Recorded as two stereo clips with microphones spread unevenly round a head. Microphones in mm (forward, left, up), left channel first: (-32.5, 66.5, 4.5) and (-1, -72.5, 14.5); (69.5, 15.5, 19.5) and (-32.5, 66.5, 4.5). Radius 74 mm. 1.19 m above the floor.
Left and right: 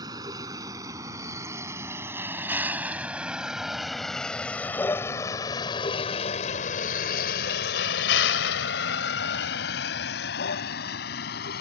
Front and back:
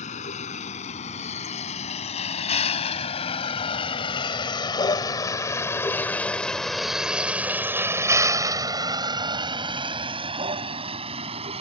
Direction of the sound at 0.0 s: 10° right.